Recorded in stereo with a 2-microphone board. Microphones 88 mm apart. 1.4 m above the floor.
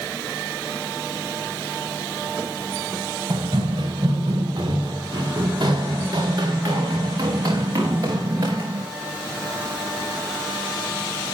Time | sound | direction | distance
3.3 | running footsteps | 55° right (ahead or behind) | 6 m